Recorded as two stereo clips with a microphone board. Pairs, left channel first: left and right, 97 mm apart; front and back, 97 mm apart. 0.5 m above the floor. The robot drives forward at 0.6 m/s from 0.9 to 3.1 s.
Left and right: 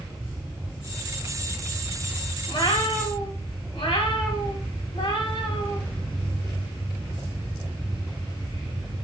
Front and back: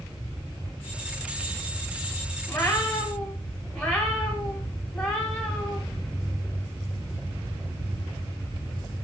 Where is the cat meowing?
70° left, 1.3 m; by 5.8 s 90° left, 1.2 m.